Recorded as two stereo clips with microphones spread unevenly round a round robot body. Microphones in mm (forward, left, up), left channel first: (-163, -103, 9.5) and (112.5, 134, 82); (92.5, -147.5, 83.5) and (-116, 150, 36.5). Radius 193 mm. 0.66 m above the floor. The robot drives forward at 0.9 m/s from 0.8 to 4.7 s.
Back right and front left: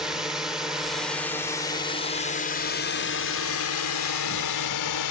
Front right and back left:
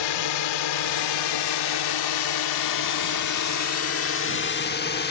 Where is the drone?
55° right; by 5.1 s 120° right.